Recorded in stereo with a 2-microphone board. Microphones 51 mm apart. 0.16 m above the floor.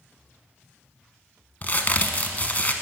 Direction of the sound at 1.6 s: 35° left (ahead or behind).